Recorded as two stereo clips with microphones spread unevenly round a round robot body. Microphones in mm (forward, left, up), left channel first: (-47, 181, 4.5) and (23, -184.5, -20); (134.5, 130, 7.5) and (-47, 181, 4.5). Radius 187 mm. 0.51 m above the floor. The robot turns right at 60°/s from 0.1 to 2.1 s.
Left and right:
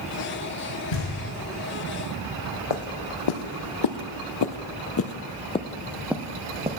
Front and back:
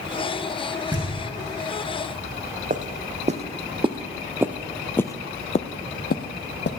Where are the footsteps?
115° left, 1.5 m; by 6.7 s 5° right, 1.1 m.